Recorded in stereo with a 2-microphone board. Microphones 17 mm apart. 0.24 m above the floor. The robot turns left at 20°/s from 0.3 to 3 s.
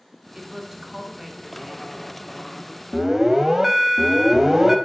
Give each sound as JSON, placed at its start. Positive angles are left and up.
{"t": 0.3, "sound": "a woman speaking", "side_deg": -25, "distance_m": 2.0}
{"t": 2.9, "sound": "an alarm", "side_deg": -10, "distance_m": 0.8}